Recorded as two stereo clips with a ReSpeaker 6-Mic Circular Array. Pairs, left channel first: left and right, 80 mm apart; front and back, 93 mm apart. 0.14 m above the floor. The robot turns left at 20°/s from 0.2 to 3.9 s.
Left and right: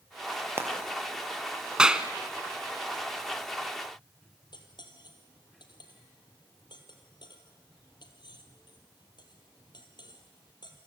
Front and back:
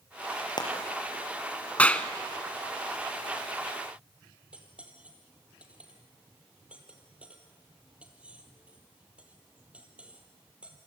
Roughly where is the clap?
Ahead right.